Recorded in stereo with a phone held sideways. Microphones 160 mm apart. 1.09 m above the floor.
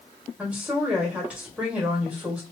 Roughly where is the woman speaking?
Centre.